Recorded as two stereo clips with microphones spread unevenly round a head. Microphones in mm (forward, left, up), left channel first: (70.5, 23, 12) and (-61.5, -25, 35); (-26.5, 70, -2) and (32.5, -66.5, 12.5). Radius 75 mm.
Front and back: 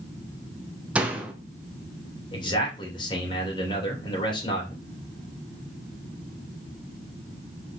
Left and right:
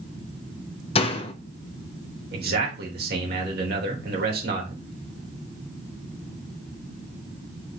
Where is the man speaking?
40° right, 3 m.